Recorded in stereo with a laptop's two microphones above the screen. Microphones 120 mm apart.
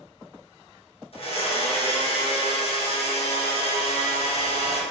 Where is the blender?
55° left (ahead or behind), 1.0 m.